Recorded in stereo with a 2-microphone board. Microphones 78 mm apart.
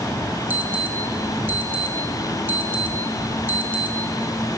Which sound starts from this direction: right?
An alarm, at 0.5 s.